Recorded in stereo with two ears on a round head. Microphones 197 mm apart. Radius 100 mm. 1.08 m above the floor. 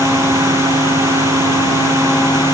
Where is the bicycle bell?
No bicycle bell in this recording.